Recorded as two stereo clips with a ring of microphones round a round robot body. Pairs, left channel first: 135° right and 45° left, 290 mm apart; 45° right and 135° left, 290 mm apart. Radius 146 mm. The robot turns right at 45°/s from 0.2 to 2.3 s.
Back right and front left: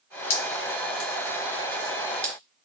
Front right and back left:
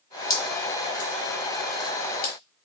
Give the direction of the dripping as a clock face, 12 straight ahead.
4 o'clock.